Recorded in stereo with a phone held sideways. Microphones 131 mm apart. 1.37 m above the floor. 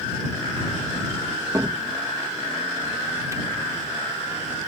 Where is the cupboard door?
25° right (ahead or behind).